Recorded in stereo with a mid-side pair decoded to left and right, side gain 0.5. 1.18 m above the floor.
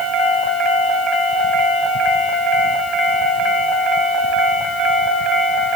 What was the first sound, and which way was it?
Only background noise.